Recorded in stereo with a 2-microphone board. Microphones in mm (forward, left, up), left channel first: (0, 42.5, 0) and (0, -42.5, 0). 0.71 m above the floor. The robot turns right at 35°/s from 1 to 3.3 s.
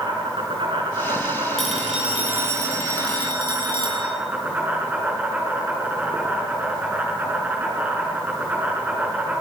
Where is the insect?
100° right, 6.5 m; by 9.4 s 20° right, 6.5 m.